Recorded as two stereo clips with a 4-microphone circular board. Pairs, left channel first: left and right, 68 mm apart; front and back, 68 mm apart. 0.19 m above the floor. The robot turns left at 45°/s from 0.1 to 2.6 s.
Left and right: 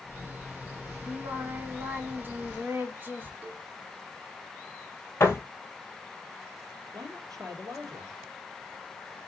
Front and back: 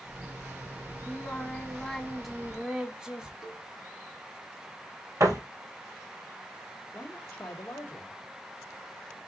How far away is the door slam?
About 3 m.